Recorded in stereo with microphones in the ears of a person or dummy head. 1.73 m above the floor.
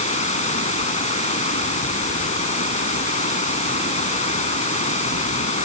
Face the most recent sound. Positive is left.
turn(degrees=35)  # may be behind; listen again after turning